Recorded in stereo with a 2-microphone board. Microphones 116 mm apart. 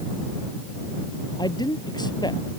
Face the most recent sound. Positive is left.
turn(degrees=40)  # may be behind; listen again after turning